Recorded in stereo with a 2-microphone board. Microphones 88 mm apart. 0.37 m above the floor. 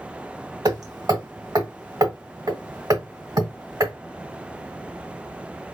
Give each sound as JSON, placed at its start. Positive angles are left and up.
{"t": 0.7, "sound": "hammering", "side_deg": -55, "distance_m": 1.6}